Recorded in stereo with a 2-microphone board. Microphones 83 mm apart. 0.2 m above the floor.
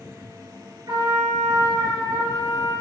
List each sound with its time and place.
0.9 s a trumpet: 50° right (ahead or behind), 3.5 m